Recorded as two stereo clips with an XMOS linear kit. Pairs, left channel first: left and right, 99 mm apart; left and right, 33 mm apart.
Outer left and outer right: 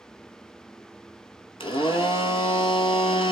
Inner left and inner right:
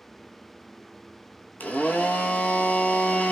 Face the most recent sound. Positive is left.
turn(degrees=60)  # may be behind; listen again after turning